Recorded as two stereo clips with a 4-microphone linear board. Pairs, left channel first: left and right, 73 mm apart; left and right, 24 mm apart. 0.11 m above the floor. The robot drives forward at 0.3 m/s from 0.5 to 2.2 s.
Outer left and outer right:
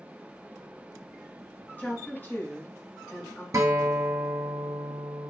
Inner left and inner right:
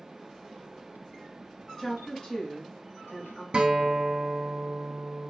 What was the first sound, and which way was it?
A woman speaking, 25° left (ahead or behind).